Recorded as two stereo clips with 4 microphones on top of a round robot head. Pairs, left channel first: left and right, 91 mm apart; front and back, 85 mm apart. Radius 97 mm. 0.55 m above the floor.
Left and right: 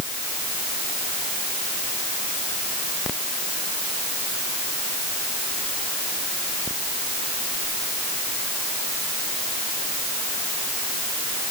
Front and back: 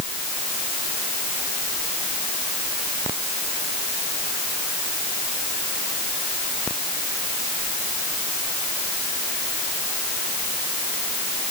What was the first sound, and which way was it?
Only background noise.